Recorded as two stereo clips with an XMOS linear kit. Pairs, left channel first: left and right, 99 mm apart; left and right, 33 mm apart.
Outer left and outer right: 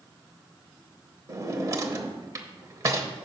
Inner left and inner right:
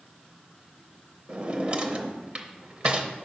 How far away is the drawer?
About 0.6 m.